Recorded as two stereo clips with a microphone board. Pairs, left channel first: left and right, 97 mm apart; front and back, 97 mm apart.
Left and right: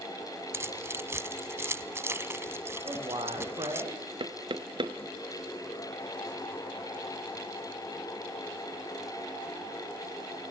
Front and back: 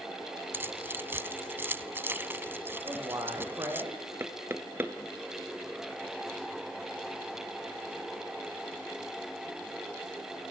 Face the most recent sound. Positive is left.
turn(degrees=-115)